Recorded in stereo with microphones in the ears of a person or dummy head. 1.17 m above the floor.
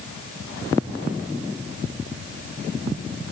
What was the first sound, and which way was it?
Only background noise.